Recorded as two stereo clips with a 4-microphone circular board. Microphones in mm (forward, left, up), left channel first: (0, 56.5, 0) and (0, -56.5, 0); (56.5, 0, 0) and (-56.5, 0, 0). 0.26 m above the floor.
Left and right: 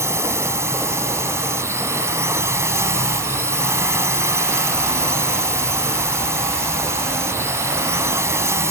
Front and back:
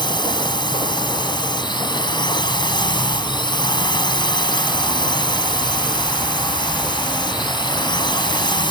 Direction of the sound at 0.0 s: 30° right.